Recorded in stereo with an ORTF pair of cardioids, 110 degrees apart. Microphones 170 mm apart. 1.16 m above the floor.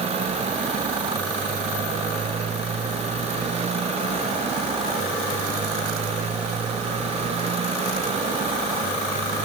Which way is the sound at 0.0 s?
40° right.